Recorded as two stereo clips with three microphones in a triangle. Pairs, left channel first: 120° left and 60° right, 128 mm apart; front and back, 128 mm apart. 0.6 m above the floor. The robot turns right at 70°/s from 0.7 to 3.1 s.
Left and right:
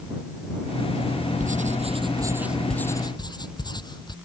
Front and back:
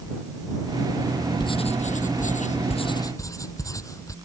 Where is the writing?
55° right; by 4.2 s 65° left.